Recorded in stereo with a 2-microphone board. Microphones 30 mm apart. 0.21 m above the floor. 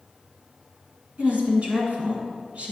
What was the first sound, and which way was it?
A woman speaking, 50° right (ahead or behind).